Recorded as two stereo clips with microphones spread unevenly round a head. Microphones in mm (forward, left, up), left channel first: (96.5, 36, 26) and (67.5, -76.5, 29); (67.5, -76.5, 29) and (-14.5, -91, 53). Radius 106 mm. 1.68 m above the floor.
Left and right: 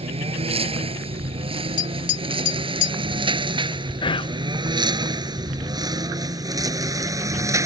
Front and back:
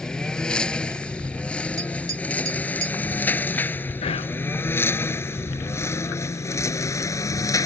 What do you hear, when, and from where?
0.0 s a lawn mower: 70° right; by 7.7 s 40° right
1.8 s tapping: 120° left
4.0 s whispering: 25° left